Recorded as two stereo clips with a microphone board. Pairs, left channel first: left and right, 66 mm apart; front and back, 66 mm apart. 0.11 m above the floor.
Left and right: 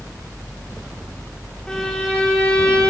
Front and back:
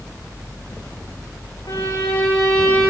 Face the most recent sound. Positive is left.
turn(degrees=15)